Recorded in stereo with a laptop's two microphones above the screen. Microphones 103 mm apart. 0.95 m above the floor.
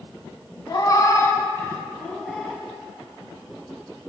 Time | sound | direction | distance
0.7 | a cat meowing | 40° left (ahead or behind) | 1.1 m